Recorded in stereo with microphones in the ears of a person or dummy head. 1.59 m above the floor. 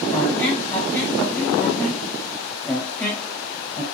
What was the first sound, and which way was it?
A squeak, 10° left (ahead or behind).